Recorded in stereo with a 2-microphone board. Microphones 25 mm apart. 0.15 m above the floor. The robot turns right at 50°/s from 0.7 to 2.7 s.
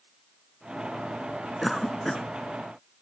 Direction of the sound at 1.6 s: Straight ahead.